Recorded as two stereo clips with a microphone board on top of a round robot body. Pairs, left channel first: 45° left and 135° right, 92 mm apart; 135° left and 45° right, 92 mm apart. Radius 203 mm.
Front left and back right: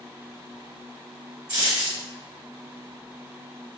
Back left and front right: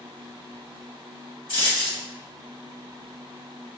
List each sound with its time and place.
1.5 s a dropped coin: straight behind, 1.5 m